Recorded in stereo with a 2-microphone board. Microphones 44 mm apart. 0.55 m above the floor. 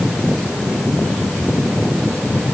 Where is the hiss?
No hiss in this recording.